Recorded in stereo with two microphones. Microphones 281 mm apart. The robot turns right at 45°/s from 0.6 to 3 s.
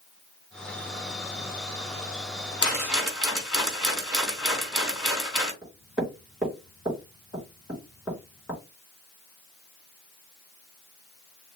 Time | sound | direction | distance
2.6 | a rattle | 15° left (ahead or behind) | 3.5 m
5.6 | knocking | centre (ahead or behind) | 3.5 m